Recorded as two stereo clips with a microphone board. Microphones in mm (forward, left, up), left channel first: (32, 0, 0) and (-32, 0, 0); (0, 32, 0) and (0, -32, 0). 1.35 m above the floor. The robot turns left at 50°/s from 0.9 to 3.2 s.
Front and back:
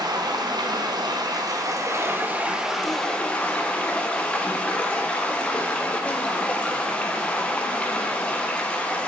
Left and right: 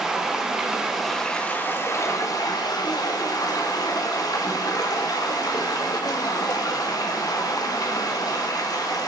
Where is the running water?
170° right, 0.8 m; by 9.1 s 75° left, 0.8 m.